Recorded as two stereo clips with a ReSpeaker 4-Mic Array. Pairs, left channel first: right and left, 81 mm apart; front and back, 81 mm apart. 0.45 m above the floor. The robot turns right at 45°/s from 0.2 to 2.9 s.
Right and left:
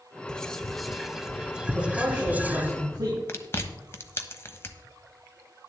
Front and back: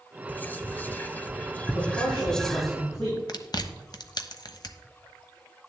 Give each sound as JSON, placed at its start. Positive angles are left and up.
{"t": 0.3, "sound": "whispering", "azimuth_deg": -25, "distance_m": 0.8}
{"t": 1.7, "sound": "a man speaking", "azimuth_deg": -10, "distance_m": 6.0}
{"t": 3.3, "sound": "chewing", "azimuth_deg": -30, "distance_m": 1.0}